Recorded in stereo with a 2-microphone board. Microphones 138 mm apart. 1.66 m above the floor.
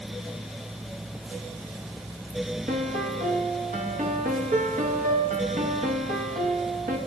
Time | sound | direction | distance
2.7 | a piano | 80° right | 1.1 m